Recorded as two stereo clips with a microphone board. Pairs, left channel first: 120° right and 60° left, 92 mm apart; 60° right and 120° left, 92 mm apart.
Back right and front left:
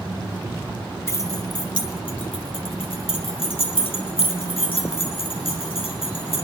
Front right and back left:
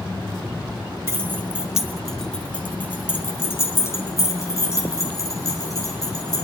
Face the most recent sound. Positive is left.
turn(degrees=-110)